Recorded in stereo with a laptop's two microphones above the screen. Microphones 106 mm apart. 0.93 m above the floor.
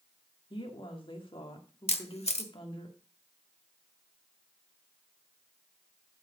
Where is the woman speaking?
55° left (ahead or behind), 1.8 m.